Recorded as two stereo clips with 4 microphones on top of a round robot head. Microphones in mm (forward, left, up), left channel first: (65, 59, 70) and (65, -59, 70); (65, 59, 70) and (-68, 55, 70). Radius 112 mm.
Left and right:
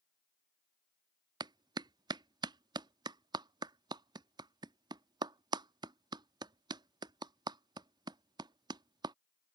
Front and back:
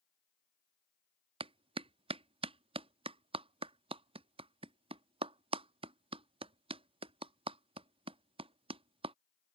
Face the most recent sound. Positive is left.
turn(degrees=-140)